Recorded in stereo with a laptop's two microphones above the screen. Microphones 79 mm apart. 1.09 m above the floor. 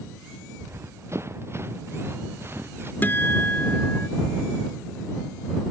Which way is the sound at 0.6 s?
35° right (ahead or behind).